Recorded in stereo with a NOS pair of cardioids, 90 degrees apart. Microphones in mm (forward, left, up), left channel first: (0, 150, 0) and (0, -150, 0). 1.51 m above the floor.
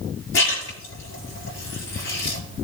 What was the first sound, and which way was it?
A splash, 45° left.